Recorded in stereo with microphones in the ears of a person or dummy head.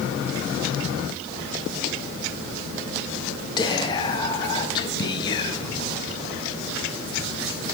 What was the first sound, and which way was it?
Whispering, 25° left (ahead or behind).